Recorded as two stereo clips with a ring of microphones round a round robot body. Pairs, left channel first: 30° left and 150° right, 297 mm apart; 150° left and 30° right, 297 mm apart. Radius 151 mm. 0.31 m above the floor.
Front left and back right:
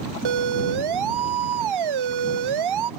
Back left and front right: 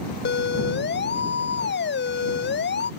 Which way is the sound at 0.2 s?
155° right.